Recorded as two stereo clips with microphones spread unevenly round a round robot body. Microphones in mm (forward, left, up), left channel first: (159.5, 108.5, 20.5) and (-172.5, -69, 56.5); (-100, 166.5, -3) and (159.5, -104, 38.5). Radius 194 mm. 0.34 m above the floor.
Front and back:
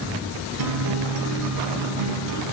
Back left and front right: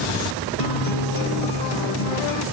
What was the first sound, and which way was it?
A guitar, 165° left.